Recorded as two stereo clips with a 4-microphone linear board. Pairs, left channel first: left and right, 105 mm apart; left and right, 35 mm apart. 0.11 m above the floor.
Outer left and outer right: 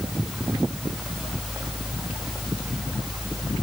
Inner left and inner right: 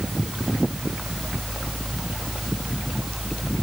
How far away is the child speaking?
I don't hear a child speaking.